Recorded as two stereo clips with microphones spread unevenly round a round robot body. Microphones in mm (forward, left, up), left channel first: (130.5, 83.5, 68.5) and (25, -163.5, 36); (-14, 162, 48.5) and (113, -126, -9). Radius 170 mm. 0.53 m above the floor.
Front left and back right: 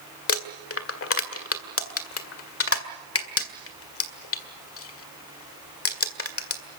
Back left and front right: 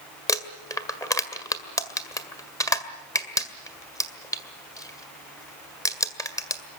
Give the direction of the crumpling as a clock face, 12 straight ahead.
11 o'clock.